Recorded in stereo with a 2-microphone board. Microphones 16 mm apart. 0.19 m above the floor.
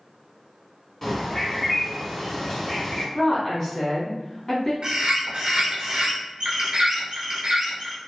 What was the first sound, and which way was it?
A bird, 20° left (ahead or behind).